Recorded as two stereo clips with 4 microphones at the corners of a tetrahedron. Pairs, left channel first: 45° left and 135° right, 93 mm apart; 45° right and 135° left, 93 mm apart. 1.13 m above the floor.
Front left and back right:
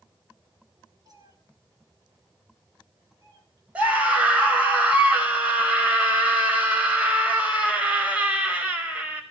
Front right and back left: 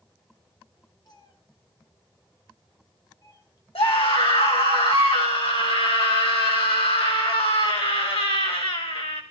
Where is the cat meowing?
90° right, 3 m.